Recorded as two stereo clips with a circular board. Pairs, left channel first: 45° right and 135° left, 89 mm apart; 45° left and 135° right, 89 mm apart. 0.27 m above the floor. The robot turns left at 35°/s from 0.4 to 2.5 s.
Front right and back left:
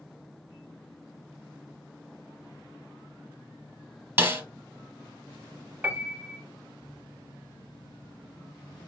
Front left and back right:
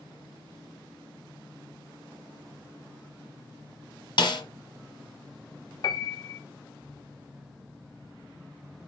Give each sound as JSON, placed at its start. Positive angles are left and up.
{"t": 4.2, "sound": "a snare drum", "azimuth_deg": 70, "distance_m": 1.5}
{"t": 5.8, "sound": "a piano", "azimuth_deg": 70, "distance_m": 0.7}